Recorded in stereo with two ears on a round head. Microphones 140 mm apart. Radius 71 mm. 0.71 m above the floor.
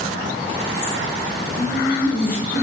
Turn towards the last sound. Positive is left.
turn(degrees=60)  # may be behind; listen again after turning